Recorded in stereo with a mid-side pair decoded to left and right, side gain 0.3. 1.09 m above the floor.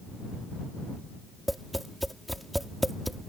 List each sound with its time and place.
1.5 s tapping: 5° right